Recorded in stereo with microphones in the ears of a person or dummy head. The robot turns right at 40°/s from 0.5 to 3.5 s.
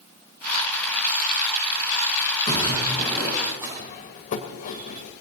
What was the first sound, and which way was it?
A splash, 145° left.